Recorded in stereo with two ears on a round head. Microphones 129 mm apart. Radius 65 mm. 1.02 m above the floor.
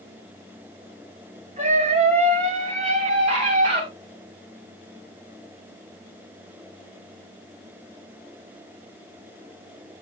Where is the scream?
50° right (ahead or behind), 6.5 m; by 3.8 s 40° right (ahead or behind), 7.5 m.